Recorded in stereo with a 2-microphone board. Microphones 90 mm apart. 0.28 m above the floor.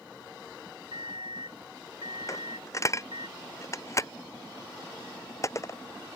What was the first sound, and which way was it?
An alarm clock, 75° right (ahead or behind).